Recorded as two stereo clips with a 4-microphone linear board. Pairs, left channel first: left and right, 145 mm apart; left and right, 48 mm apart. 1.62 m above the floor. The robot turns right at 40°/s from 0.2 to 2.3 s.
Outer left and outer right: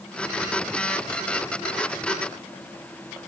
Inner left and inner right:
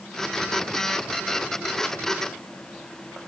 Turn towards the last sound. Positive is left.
No sound to turn to.